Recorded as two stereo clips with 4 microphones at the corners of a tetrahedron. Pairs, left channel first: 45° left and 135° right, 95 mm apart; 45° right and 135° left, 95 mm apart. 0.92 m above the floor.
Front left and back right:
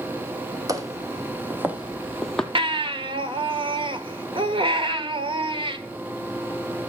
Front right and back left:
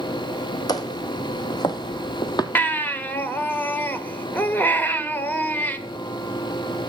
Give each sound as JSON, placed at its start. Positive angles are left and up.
{"t": 0.7, "sound": "footsteps", "azimuth_deg": -85, "distance_m": 2.0}
{"t": 2.5, "sound": "a baby crying", "azimuth_deg": -115, "distance_m": 1.3}